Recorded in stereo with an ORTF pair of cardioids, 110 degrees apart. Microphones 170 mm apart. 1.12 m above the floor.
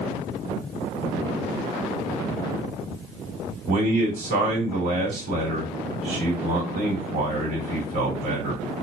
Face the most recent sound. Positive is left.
turn(degrees=-65)